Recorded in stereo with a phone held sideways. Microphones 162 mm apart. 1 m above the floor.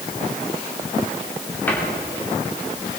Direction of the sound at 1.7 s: 10° left (ahead or behind).